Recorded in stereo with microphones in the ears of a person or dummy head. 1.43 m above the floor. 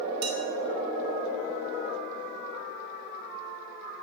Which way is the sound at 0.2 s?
65° right (ahead or behind).